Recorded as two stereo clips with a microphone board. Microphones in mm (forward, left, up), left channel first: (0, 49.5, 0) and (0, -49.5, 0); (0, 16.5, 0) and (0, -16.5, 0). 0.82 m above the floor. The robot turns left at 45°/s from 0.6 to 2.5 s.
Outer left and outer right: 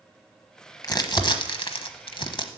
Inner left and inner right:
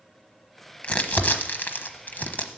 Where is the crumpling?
40° left (ahead or behind), 1.1 m; by 2.5 s 50° left (ahead or behind), 1.1 m.